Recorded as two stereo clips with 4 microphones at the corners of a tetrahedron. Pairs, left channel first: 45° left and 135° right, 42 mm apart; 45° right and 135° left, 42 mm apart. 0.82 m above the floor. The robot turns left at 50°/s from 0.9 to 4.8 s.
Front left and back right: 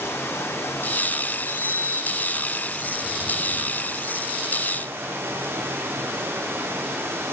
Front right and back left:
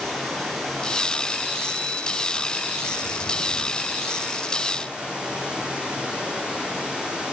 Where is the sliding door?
50° left, 5 m; by 4.4 s 95° right, 5 m.